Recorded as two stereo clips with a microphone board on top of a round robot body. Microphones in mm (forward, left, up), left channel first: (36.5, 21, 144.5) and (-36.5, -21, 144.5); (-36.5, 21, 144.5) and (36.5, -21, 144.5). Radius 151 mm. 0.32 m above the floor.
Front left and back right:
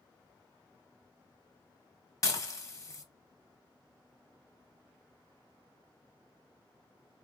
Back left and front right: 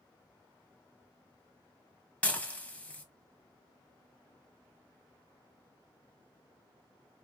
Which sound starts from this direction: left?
Dishes clattering, at 2.2 s.